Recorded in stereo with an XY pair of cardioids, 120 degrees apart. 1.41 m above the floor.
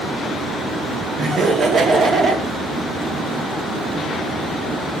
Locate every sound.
1.2 s laughter: 40° right, 0.9 m